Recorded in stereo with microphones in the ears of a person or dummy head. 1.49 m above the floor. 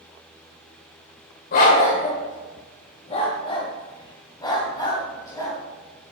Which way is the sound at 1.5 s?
45° left (ahead or behind).